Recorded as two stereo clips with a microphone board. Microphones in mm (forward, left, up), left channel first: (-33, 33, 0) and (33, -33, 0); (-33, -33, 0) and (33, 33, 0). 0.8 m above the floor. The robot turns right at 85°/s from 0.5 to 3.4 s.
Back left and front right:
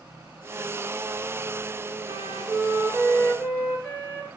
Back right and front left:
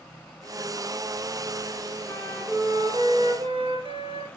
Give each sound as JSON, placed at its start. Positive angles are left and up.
{"t": 2.0, "sound": "a flute", "azimuth_deg": -55, "distance_m": 5.0}